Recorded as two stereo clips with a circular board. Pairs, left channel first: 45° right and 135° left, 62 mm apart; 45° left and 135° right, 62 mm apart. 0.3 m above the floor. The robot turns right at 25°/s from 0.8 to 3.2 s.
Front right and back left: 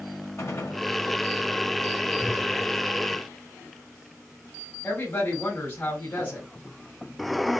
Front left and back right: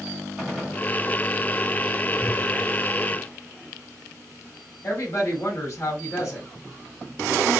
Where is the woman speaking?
15° left, 3.5 m.